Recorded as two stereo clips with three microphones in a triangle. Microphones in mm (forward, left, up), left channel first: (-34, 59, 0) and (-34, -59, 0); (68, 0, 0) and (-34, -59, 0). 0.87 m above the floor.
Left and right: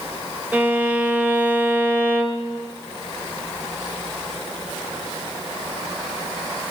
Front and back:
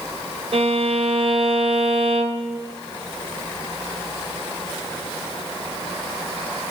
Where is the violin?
165° right, 0.9 m.